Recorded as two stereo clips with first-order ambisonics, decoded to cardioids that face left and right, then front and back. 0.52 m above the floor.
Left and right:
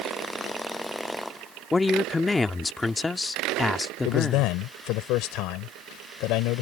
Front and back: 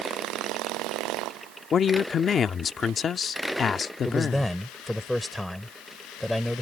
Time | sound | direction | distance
1.7 | a woman speaking | 20° left | ?
4.0 | a man speaking | 85° left | ?